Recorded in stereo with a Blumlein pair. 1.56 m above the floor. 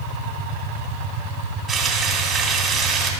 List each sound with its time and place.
1.7 s frying: 25° right, 2.5 m